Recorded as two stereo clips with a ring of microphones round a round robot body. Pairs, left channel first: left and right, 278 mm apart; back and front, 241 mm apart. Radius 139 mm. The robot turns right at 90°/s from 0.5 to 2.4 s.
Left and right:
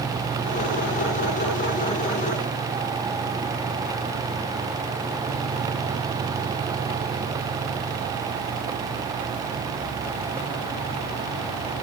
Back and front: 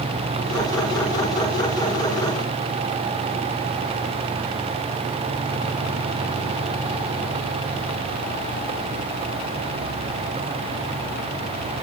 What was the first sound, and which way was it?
Only background noise.